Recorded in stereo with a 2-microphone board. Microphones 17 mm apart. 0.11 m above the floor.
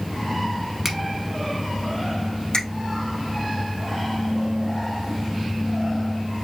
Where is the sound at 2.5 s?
60° left (ahead or behind), 2.5 m.